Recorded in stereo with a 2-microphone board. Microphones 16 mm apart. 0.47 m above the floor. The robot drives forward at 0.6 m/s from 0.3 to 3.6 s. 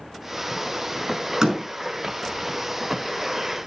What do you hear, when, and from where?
1.4 s a door slam: 40° right (ahead or behind), 6 m